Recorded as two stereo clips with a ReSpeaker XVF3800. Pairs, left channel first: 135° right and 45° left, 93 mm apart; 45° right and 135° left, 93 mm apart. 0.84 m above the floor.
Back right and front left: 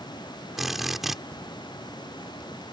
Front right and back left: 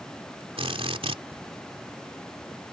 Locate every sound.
0.6 s a drill: 130° left